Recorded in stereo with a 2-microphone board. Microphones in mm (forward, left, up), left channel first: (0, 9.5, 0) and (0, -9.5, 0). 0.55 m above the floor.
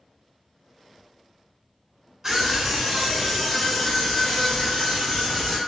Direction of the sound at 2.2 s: 15° right (ahead or behind).